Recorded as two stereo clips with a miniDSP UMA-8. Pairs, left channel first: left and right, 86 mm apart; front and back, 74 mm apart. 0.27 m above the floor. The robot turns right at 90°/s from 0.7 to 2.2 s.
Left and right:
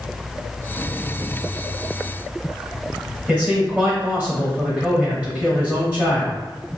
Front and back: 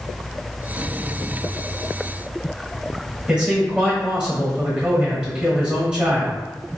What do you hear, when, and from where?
3.3 s a man speaking: 125° right, 1.2 m